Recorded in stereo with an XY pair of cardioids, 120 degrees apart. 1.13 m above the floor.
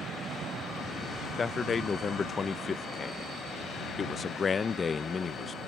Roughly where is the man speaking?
Ahead left.